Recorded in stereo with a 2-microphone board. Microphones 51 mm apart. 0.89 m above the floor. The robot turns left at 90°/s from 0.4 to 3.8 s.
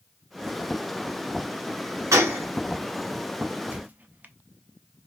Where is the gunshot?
85° right, 1.1 m; by 2.4 s 55° right (ahead or behind), 1.1 m.